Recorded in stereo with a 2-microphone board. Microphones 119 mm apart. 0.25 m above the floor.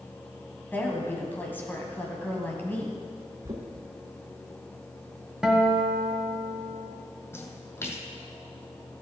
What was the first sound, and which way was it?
A woman speaking, 15° left (ahead or behind).